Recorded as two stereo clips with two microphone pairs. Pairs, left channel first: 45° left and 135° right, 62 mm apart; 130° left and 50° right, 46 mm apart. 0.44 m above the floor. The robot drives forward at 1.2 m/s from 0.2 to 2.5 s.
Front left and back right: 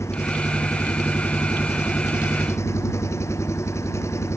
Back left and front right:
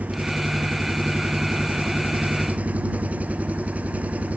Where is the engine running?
5° left.